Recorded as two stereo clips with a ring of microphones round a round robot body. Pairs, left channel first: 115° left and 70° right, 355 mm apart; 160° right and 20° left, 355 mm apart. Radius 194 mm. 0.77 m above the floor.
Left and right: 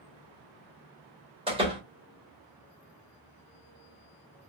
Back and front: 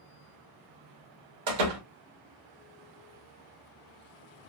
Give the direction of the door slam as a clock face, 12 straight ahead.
12 o'clock.